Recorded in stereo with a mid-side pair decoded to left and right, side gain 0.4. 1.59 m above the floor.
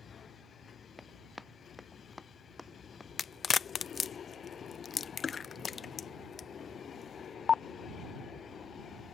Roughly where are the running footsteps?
Ahead.